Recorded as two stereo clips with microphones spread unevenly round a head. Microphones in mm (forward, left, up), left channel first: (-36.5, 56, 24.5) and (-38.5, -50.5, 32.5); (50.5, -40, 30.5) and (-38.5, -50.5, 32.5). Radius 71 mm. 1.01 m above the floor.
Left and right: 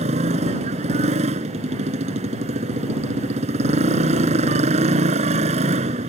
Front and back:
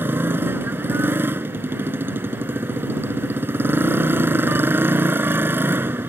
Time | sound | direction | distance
0.0 | a motorcycle | 110° right | ?